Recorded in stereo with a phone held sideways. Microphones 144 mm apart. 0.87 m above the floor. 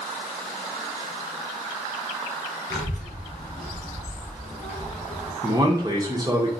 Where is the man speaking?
25° right (ahead or behind), 0.9 m.